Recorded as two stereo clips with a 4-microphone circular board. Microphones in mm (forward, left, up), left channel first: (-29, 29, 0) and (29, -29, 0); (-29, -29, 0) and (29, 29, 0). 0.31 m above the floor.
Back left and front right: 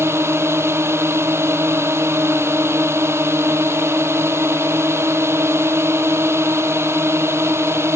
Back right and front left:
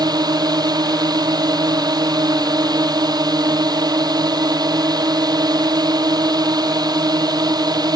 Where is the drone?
10° left.